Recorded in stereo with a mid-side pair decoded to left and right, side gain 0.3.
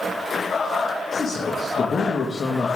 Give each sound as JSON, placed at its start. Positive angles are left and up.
{"t": 1.1, "sound": "a man speaking", "azimuth_deg": 55, "distance_m": 2.0}